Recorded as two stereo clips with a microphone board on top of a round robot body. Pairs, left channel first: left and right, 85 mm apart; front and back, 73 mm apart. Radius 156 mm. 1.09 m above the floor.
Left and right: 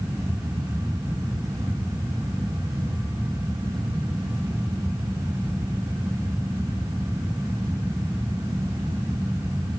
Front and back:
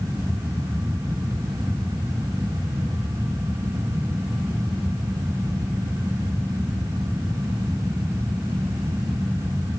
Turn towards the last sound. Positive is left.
No sound to turn to.